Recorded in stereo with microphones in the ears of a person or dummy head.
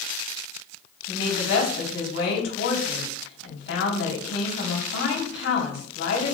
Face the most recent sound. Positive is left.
turn(degrees=80)